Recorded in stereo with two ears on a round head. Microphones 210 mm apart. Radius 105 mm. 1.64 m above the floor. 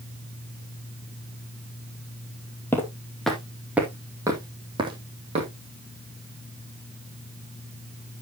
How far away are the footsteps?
About 2 m.